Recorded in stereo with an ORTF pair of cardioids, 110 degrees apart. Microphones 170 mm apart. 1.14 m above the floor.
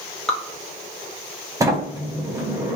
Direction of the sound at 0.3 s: 5° left.